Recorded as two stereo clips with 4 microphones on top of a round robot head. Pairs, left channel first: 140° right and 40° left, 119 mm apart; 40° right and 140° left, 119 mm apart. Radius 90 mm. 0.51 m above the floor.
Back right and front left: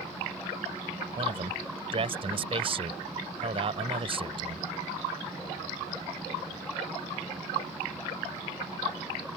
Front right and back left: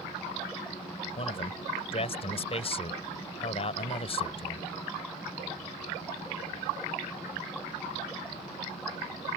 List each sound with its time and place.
1.2 s a man speaking: straight ahead